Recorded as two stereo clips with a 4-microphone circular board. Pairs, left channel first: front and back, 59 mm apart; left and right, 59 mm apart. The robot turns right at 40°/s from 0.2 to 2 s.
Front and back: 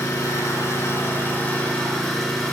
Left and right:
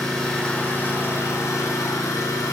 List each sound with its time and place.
0.0 s an engine running: 10° left, 3 m; by 2.5 s 85° left, 3 m